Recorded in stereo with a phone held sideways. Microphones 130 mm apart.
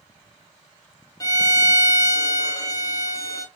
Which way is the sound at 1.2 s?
25° left (ahead or behind).